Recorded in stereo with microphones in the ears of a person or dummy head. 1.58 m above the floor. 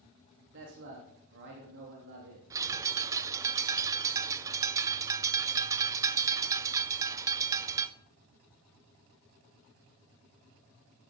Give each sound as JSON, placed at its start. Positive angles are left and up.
{"t": 0.5, "sound": "a man speaking", "side_deg": -60, "distance_m": 3.0}
{"t": 2.5, "sound": "a bird", "side_deg": -15, "distance_m": 1.0}